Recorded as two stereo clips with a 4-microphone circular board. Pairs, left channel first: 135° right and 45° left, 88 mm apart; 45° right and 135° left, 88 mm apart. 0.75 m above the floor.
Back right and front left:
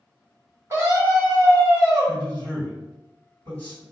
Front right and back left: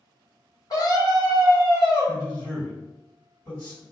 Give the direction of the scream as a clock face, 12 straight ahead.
12 o'clock.